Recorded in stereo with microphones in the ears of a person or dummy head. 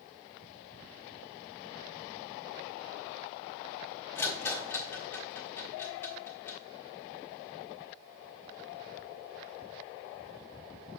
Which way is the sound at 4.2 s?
10° left (ahead or behind).